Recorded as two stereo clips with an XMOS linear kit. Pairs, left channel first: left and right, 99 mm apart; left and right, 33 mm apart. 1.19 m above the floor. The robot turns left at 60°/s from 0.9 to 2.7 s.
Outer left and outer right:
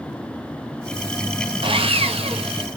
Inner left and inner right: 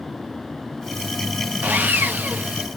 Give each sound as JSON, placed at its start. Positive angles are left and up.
{"t": 1.6, "sound": "sawing", "azimuth_deg": -60, "distance_m": 0.9}